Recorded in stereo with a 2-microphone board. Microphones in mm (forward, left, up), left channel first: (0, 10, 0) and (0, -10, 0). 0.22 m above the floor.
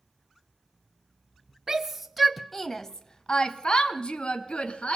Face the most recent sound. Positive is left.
turn(degrees=65)  # may be behind; listen again after turning